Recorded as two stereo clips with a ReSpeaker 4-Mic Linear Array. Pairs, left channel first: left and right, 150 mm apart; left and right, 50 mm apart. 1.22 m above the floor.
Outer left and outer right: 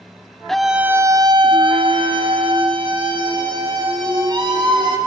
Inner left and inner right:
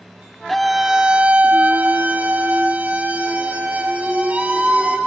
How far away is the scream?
About 0.7 m.